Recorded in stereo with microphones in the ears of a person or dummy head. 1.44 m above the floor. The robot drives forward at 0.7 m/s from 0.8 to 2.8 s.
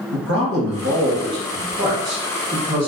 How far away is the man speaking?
About 0.6 m.